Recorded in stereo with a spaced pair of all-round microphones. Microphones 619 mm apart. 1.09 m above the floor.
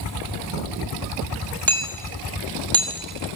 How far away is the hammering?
About 5.5 m.